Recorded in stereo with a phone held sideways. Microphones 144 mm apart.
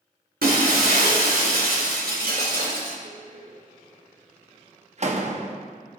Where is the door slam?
50° right (ahead or behind), 1.0 m.